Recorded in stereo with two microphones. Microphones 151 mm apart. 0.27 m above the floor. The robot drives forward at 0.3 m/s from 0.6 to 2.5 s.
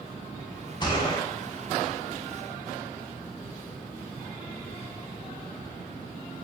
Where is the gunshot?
30° left (ahead or behind), 1.3 m.